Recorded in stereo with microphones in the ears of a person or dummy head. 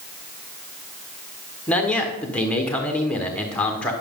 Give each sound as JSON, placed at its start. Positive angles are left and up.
{"t": 1.7, "sound": "a man speaking", "side_deg": 5, "distance_m": 1.3}